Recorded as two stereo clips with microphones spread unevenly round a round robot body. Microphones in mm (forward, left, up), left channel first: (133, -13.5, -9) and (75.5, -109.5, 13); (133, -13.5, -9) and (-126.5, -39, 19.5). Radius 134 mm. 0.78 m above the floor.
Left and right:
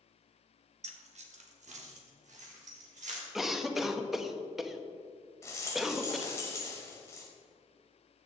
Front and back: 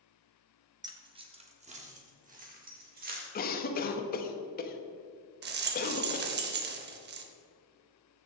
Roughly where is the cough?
Ahead.